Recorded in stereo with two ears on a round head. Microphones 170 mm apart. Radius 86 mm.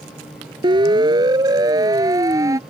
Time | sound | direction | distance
0.6 | a siren | 25° right (ahead or behind) | ?